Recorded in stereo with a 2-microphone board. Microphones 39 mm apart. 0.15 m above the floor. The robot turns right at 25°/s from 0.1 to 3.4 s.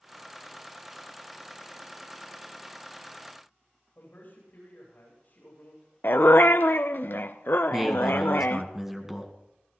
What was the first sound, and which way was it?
A man speaking, 50° left (ahead or behind).